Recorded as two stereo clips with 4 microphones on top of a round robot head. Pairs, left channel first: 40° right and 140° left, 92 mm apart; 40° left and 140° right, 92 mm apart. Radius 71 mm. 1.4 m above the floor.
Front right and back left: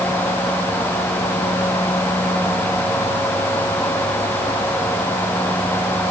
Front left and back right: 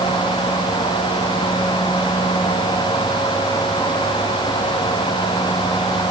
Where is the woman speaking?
I don't hear a woman speaking.